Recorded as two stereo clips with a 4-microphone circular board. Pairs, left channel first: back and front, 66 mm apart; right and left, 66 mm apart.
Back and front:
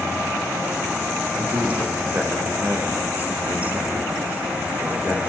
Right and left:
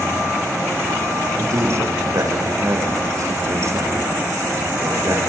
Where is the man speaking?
60° left, 8.5 m.